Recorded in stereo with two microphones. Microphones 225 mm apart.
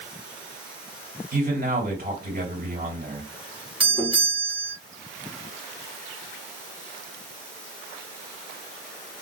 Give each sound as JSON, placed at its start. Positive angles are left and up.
{"t": 1.3, "sound": "a man speaking", "side_deg": -45, "distance_m": 3.0}
{"t": 3.8, "sound": "a doorbell", "side_deg": -20, "distance_m": 1.8}